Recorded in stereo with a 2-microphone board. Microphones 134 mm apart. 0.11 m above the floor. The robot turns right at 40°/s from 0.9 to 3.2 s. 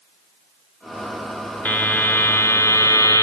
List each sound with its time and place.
1.6 s a buzzer: 10° left (ahead or behind), 1.2 m; by 3.2 s 20° left (ahead or behind), 1.2 m